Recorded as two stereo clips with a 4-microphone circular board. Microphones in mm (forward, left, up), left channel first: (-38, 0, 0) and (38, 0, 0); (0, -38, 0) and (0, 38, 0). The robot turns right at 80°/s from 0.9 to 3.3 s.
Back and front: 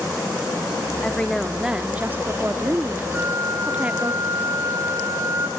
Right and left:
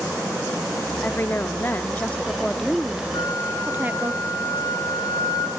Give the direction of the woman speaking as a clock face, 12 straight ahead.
4 o'clock.